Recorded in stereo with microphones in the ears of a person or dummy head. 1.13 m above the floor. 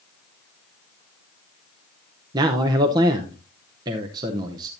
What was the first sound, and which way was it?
A man speaking, 20° right (ahead or behind).